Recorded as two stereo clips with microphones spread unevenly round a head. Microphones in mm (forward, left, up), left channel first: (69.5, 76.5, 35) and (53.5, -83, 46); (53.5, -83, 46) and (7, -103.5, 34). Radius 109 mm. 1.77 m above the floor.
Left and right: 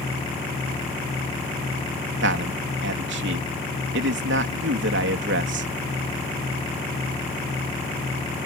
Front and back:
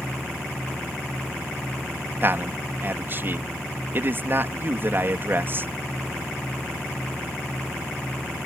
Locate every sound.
2.2 s a man speaking: 110° right